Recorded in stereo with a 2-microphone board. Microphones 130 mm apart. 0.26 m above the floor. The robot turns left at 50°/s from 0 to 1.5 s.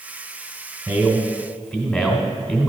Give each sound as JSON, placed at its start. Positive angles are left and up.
{"t": 0.9, "sound": "a man speaking", "azimuth_deg": -150, "distance_m": 1.8}